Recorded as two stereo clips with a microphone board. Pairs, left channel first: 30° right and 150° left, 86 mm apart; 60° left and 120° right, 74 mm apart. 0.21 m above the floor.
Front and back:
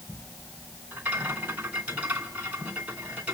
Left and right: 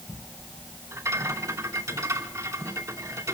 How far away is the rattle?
About 2.5 m.